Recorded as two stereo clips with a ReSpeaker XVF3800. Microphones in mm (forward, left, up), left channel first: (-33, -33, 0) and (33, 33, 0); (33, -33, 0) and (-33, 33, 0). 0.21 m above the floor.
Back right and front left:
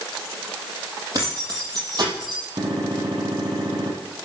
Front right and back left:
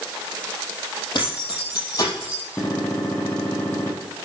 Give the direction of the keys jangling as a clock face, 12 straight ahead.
12 o'clock.